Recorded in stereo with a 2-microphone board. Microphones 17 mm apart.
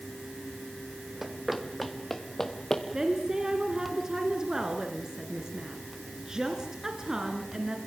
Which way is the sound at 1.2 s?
20° right (ahead or behind).